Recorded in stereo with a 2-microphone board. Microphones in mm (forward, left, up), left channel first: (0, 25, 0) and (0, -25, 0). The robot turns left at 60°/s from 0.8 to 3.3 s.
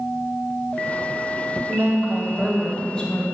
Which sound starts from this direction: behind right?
A woman speaking, at 1.7 s.